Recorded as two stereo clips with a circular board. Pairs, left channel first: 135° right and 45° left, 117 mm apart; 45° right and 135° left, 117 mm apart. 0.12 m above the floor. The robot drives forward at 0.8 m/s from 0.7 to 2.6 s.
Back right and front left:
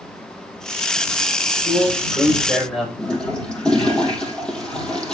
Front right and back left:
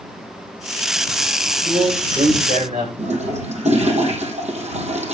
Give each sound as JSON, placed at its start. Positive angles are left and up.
{"t": 1.4, "sound": "a man speaking", "azimuth_deg": 135, "distance_m": 10.0}
{"t": 3.0, "sound": "a toilet flushing", "azimuth_deg": 140, "distance_m": 4.0}